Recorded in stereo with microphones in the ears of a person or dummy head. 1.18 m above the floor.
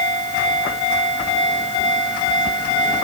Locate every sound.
Only background noise.